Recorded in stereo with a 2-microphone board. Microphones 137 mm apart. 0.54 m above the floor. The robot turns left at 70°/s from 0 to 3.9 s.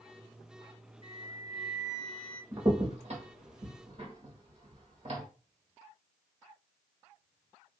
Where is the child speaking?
No child speaking in this recording.